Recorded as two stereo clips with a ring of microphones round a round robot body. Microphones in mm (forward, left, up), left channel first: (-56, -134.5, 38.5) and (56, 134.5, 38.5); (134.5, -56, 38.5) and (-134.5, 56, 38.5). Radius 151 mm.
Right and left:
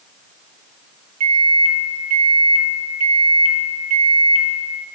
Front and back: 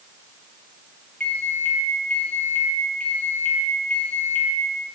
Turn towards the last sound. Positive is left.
turn(degrees=60)